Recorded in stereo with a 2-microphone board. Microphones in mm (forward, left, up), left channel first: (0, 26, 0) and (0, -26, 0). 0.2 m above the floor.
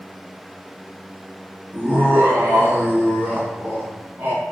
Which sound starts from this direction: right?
Laughter, at 1.7 s.